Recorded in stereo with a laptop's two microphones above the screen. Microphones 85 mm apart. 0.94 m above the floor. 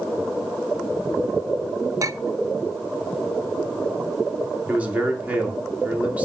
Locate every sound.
2.0 s a clink: 40° right (ahead or behind), 0.6 m
4.7 s a man speaking: 20° right (ahead or behind), 2.5 m